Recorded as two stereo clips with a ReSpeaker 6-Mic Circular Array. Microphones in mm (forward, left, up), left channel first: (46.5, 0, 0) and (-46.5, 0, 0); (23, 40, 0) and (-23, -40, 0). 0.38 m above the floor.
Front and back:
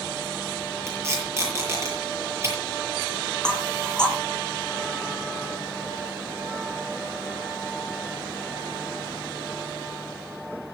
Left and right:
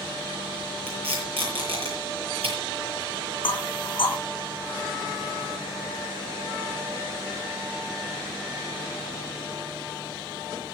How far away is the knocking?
About 3 m.